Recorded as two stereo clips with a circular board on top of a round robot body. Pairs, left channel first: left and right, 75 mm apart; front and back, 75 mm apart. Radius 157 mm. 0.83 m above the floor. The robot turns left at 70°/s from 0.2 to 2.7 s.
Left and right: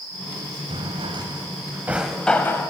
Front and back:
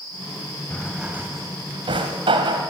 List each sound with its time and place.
0.7 s a drawer: 80° right, 1.2 m; by 2.7 s 140° left, 1.2 m